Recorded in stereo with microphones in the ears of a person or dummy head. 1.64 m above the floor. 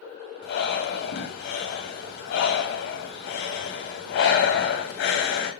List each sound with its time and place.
0.4 s breathing: 55° left (ahead or behind), 2 m